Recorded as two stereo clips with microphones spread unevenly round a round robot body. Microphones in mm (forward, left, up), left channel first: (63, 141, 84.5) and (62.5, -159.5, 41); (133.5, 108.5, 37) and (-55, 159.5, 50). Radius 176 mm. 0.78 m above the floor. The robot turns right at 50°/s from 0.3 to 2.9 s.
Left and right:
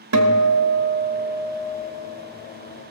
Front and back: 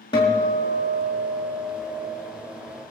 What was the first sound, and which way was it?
A guitar, 85° right.